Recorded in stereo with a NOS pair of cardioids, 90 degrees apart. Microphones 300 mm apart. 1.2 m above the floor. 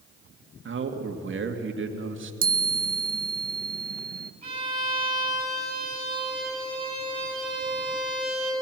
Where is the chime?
30° right, 0.7 m.